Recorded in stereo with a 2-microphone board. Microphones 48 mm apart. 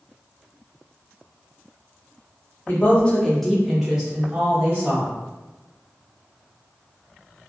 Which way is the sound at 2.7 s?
40° left (ahead or behind).